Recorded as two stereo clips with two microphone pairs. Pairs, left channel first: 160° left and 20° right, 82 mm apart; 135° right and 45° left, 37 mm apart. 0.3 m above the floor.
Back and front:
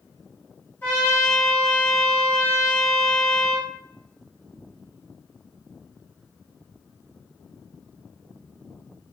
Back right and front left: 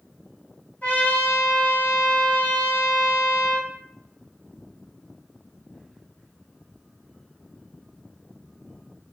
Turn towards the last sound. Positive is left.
turn(degrees=-155)